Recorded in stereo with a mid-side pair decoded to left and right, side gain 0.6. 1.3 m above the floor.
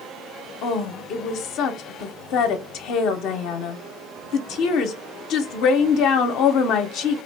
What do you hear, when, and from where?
0.6 s a woman speaking: 65° left, 0.5 m